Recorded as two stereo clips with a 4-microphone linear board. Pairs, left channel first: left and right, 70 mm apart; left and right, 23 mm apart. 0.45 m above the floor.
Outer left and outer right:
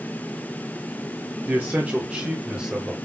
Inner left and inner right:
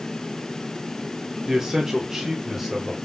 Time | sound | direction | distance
1.4 | a man speaking | 30° right (ahead or behind) | 0.8 m